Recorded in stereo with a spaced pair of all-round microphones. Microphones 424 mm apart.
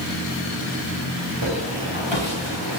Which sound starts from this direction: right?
Footsteps, at 1.4 s.